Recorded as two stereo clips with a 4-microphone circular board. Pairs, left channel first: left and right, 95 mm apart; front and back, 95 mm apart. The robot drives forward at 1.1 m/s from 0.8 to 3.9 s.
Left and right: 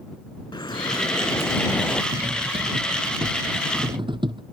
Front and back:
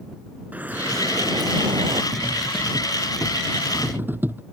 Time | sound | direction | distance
0.5 | dripping | 110° left | ?
2.1 | cutlery clinking | 85° right | ?